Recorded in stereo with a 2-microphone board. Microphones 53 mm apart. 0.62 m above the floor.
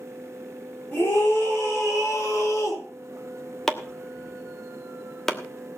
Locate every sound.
0.9 s a scream: 35° left (ahead or behind), 7 m; by 2.8 s 60° left (ahead or behind), 7 m
3.7 s chopping: 5° left (ahead or behind), 1.2 m